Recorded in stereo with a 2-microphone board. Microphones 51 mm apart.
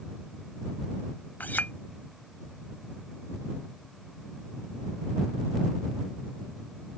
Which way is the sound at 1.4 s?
35° left (ahead or behind).